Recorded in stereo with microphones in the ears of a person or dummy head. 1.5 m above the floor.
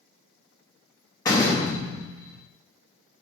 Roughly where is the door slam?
Centre.